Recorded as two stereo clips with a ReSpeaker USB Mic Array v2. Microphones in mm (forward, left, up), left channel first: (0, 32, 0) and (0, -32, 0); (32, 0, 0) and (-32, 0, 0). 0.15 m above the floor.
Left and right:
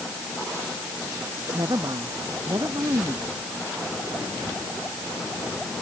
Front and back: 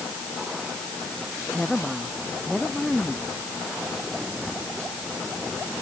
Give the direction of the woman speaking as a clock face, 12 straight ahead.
3 o'clock.